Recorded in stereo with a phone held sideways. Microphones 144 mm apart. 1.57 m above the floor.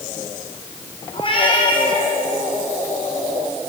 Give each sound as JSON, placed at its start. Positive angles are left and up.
{"t": 1.1, "sound": "a cat meowing", "side_deg": 40, "distance_m": 7.0}